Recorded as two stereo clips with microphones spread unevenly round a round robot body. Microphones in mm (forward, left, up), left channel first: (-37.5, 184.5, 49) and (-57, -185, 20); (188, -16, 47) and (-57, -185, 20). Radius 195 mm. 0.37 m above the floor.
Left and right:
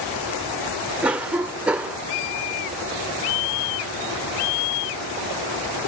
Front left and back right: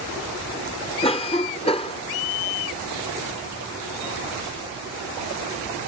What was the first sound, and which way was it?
A cough, 20° right.